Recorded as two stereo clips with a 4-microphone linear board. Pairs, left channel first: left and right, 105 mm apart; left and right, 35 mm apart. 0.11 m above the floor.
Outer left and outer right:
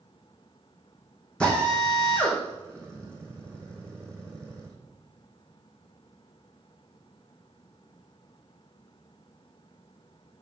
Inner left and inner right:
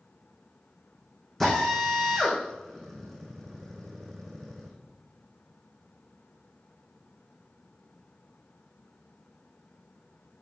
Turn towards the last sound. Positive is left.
turn(degrees=10)  # may be behind; listen again after turning